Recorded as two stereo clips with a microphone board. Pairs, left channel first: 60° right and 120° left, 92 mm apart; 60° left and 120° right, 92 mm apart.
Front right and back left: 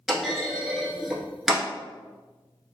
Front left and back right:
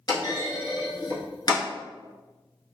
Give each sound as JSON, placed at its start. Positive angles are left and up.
{"t": 0.1, "sound": "a clunk", "azimuth_deg": 35, "distance_m": 0.8}